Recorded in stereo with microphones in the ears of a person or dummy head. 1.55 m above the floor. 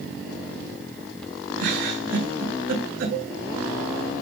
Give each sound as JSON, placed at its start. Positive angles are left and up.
{"t": 1.6, "sound": "a giggle", "side_deg": -80, "distance_m": 8.0}
{"t": 3.1, "sound": "a cowbell", "side_deg": -80, "distance_m": 7.0}